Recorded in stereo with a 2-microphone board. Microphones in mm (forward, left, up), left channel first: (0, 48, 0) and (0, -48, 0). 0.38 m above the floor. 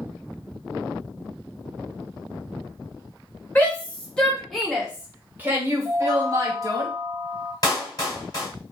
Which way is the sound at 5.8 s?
5° left (ahead or behind).